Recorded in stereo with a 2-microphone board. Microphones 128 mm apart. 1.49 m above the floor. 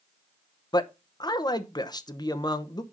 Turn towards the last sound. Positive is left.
turn(degrees=30)  # may be behind; listen again after turning